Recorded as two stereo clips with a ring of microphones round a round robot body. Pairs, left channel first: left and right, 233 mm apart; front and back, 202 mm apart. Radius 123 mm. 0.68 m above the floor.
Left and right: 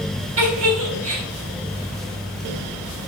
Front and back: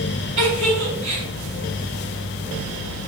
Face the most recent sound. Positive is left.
turn(degrees=-115)